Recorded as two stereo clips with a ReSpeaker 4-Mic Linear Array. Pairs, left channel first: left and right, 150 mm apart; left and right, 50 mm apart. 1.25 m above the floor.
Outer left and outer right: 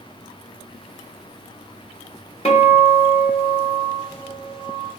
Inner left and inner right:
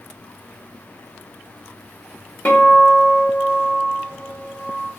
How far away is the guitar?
About 1.1 m.